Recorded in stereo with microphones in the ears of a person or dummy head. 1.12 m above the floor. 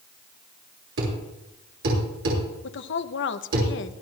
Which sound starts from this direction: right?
A thud, at 1.0 s.